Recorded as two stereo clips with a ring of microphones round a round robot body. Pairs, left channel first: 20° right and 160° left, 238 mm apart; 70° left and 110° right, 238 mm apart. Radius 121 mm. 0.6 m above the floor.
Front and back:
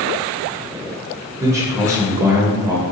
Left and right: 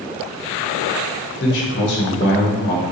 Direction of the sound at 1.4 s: 85° left.